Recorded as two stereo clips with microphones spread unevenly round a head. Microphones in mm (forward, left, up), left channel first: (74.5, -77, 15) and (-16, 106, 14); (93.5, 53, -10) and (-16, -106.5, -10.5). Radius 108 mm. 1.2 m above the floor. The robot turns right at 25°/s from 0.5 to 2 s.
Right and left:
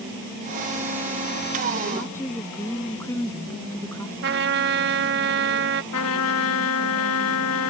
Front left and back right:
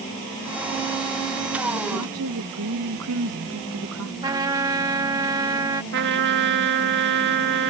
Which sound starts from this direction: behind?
A trumpet, at 4.2 s.